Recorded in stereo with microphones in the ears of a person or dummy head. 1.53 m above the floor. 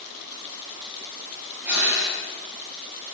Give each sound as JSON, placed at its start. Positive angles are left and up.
{"t": 1.6, "sound": "breathing", "side_deg": -5, "distance_m": 7.0}